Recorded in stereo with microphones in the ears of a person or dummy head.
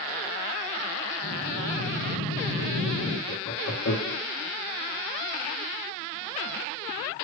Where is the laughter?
75° left (ahead or behind), 1.0 m.